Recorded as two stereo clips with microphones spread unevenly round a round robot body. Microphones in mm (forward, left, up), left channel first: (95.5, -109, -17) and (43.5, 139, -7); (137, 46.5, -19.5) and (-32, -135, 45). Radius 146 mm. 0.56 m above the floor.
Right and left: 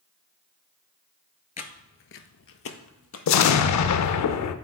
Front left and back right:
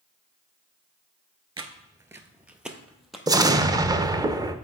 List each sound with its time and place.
1.6 s footsteps: 120° right, 0.6 m; by 3.2 s 50° right, 1.2 m
3.3 s an explosion: 55° right, 0.5 m